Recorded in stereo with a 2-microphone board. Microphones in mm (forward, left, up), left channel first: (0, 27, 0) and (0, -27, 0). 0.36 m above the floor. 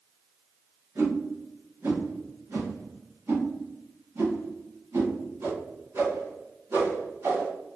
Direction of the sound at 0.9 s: 55° right (ahead or behind).